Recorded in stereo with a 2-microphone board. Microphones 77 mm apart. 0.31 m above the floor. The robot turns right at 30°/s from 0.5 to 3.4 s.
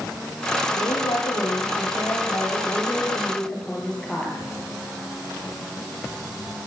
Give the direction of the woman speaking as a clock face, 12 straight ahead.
9 o'clock.